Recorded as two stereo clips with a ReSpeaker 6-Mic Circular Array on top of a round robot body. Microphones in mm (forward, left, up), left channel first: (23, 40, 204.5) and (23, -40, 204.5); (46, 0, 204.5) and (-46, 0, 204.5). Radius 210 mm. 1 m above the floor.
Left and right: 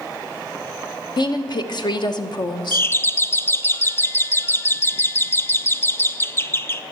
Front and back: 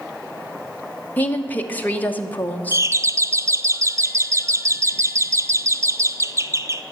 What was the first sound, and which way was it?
A woman speaking, 70° left.